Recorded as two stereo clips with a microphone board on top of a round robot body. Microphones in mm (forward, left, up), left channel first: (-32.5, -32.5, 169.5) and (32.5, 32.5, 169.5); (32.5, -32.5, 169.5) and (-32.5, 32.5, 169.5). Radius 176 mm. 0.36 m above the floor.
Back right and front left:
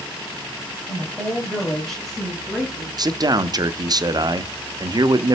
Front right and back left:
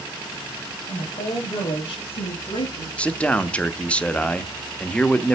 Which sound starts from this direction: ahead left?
A man speaking, at 3.0 s.